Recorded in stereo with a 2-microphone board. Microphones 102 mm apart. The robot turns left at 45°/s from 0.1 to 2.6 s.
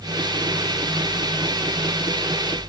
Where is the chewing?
I don't hear chewing.